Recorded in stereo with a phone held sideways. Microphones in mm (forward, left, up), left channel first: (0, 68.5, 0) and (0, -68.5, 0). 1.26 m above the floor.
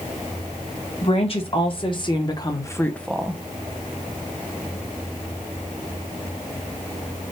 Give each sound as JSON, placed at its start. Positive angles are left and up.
{"t": 1.0, "sound": "a woman speaking", "side_deg": 45, "distance_m": 1.5}